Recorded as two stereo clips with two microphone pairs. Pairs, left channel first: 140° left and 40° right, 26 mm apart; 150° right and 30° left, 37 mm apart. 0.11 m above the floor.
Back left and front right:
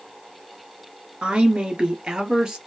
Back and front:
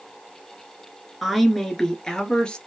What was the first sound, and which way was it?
A woman speaking, 60° right.